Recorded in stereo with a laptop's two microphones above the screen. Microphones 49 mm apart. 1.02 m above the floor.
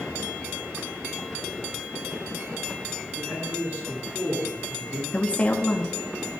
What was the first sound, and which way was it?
A man speaking, 50° right (ahead or behind).